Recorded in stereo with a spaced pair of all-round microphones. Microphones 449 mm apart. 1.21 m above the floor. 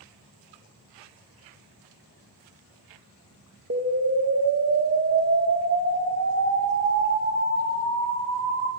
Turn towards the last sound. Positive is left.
turn(degrees=-30)  # may be behind; listen again after turning